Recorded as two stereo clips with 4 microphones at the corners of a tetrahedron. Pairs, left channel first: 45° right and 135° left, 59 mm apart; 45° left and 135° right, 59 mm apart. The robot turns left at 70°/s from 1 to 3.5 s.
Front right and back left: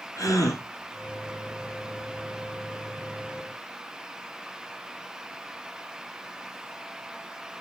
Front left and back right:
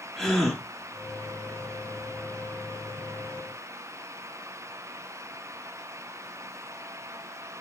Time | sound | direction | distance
0.2 | a gasp | 40° right | 4.5 m